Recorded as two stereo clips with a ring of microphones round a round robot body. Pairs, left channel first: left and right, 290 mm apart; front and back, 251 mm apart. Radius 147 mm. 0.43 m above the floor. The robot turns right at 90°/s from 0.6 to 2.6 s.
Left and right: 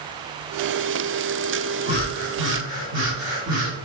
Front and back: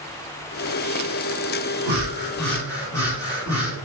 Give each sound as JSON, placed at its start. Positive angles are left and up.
{"t": 1.9, "sound": "breathing", "azimuth_deg": -140, "distance_m": 1.8}